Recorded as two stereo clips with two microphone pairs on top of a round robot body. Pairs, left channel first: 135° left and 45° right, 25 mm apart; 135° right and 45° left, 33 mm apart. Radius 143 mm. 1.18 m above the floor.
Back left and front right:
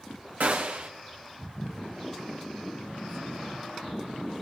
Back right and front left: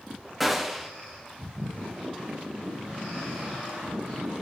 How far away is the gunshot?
About 1.4 m.